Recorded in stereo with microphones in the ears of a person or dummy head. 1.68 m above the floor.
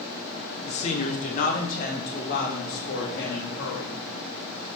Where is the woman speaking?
35° left (ahead or behind), 1.0 m; by 4.0 s 55° left (ahead or behind), 2.5 m.